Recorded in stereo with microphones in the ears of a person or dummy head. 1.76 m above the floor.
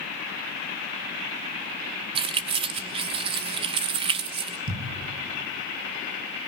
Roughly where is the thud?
Right.